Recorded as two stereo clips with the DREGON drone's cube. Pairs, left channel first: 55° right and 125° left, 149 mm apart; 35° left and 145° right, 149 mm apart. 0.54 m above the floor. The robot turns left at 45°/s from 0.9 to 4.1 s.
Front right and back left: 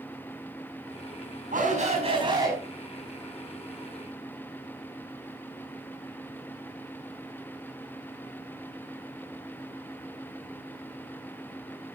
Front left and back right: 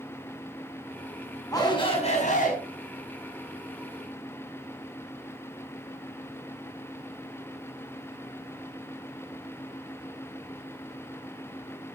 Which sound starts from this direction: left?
A shout, at 1.5 s.